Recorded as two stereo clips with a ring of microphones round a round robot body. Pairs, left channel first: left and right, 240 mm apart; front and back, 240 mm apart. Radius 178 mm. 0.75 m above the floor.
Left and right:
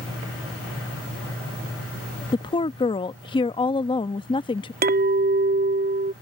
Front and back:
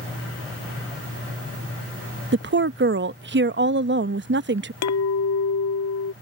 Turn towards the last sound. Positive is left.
turn(degrees=-35)